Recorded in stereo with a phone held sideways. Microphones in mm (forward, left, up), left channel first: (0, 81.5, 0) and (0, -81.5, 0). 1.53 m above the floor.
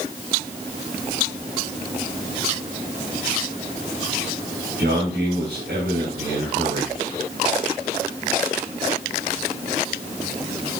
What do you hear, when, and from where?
4.8 s a man speaking: 90° right, 7 m